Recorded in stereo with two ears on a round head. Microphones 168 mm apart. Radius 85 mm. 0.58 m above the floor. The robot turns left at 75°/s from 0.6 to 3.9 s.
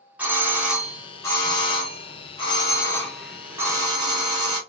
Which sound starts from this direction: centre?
A doorbell, at 0.2 s.